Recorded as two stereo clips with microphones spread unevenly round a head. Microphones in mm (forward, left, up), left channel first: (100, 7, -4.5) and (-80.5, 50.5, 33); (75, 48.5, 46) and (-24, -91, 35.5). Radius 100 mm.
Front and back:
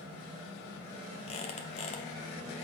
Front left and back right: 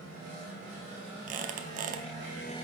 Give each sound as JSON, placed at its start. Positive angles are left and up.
{"t": 1.3, "sound": "a squeak", "azimuth_deg": -80, "distance_m": 0.7}